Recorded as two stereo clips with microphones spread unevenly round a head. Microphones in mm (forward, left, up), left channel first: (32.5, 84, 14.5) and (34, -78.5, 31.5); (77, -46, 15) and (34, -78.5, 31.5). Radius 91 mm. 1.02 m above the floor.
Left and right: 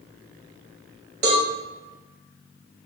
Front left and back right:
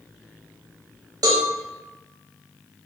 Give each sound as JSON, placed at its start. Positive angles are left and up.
{"t": 1.2, "sound": "a cowbell", "azimuth_deg": -125, "distance_m": 0.6}